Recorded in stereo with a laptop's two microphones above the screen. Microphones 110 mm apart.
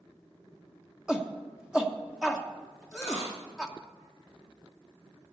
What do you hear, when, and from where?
1.1 s a shout: 5° right (ahead or behind), 1.1 m
2.9 s a dropped coin: 30° left (ahead or behind), 7 m